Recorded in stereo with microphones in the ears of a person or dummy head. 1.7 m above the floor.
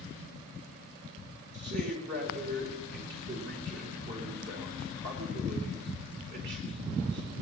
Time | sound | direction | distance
1.5 | a man speaking | 65° right (ahead or behind) | 4 m